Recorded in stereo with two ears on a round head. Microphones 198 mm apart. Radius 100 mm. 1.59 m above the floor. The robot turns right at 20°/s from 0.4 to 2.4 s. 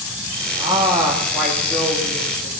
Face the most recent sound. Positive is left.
turn(degrees=15)